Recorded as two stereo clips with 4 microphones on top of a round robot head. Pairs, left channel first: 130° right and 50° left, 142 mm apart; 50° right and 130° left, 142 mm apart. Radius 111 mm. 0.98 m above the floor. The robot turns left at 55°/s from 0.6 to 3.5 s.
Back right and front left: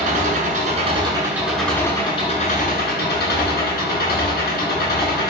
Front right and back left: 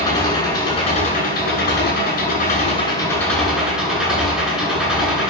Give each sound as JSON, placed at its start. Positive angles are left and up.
{"t": 0.0, "sound": "an engine running", "azimuth_deg": 15, "distance_m": 7.0}